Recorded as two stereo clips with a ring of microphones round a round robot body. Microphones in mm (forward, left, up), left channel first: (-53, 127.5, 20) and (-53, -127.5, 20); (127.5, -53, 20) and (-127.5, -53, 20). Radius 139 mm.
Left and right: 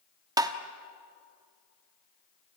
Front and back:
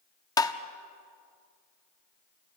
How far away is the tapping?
About 1.0 m.